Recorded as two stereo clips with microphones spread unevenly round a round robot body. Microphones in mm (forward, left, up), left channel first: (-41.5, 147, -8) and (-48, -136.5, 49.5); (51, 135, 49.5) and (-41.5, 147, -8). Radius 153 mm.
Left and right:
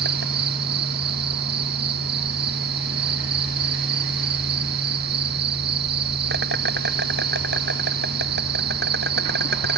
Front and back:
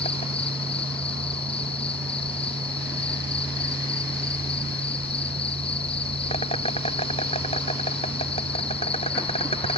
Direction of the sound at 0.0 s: 35° right.